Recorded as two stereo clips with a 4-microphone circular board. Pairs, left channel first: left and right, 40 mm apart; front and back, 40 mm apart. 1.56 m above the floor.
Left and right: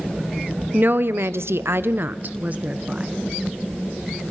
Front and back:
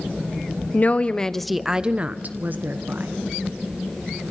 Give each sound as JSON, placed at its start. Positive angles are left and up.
{"t": 0.7, "sound": "a woman speaking", "azimuth_deg": -45, "distance_m": 1.1}